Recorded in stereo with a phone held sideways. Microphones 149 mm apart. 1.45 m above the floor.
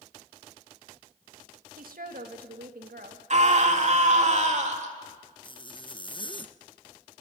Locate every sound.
1.8 s a woman speaking: 75° right (ahead or behind), 2 m; by 3.2 s 90° right, 2.5 m
3.3 s a scream: 50° right (ahead or behind), 3 m
5.4 s a zipper: 35° left (ahead or behind), 0.8 m